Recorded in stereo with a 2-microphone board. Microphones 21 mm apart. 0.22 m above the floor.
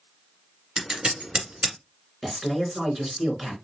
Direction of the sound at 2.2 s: 10° right (ahead or behind).